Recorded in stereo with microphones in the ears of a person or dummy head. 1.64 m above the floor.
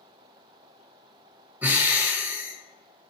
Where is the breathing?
10° right (ahead or behind), 0.6 m.